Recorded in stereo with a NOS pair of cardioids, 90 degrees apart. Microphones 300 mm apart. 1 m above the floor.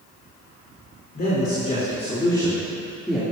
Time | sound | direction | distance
1.1 | a man speaking | 30° left | 3.5 m